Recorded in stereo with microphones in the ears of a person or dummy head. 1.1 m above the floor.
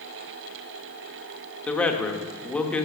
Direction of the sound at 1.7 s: 5° left (ahead or behind).